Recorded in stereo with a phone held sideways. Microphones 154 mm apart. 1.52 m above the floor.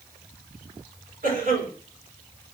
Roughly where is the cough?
Right.